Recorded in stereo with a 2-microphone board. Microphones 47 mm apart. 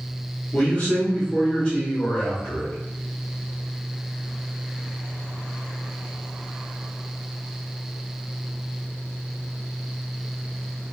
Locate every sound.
0.5 s a man speaking: 35° left (ahead or behind), 0.9 m